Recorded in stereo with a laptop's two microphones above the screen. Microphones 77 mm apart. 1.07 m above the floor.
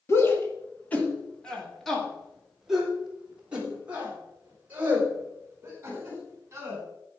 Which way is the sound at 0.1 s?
35° left (ahead or behind).